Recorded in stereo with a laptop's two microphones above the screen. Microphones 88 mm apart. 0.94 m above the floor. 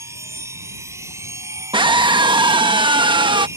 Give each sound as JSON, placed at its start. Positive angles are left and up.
{"t": 0.0, "sound": "a machine running", "side_deg": -35}
{"t": 1.7, "sound": "a scream", "side_deg": -70}